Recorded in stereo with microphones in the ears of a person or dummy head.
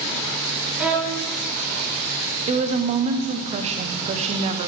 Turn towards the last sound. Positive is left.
turn(degrees=-30)  # may be behind; listen again after turning